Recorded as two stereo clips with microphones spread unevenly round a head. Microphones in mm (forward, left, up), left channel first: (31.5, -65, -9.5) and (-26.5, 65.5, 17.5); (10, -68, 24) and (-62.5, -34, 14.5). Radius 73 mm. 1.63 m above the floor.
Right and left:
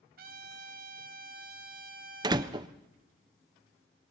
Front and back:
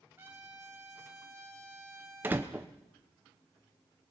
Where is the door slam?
80° left, 0.5 m.